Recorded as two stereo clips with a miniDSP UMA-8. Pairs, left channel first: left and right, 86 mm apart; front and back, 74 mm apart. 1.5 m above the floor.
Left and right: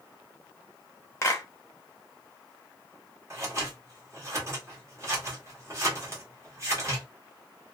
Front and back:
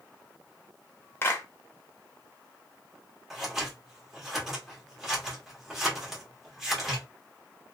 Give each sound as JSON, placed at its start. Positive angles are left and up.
{"t": 1.2, "sound": "a clap", "azimuth_deg": 45, "distance_m": 0.8}
{"t": 3.3, "sound": "scissors", "azimuth_deg": -95, "distance_m": 1.1}